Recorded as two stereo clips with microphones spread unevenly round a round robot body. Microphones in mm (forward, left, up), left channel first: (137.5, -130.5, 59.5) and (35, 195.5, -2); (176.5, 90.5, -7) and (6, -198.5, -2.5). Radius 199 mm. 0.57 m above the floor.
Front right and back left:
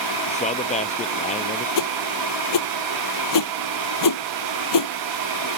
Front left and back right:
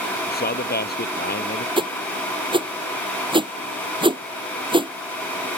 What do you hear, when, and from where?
0.3 s a man speaking: 5° right
1.8 s a whoosh: 45° right